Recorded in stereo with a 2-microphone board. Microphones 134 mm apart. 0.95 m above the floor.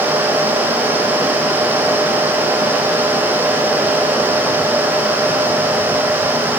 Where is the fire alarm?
I don't hear a fire alarm.